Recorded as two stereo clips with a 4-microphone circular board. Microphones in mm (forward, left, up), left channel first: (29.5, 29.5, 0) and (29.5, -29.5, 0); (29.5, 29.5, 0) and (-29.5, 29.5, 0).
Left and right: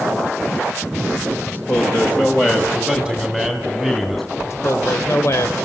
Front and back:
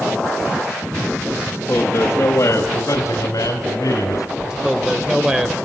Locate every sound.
1.5 s a man speaking: 45° left, 2.0 m; by 4.3 s 10° left, 3.5 m
4.4 s a man speaking: 105° left, 1.9 m